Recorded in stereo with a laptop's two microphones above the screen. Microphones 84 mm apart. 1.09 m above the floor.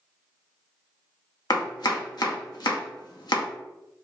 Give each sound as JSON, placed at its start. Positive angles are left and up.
{"t": 1.5, "sound": "chopping", "side_deg": 60, "distance_m": 0.6}